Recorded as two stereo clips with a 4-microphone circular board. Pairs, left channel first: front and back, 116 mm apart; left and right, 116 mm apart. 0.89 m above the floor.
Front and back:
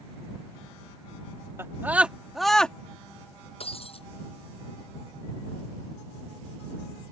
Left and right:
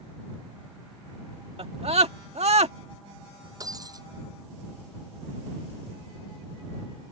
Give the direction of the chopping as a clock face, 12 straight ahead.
No chopping in this recording.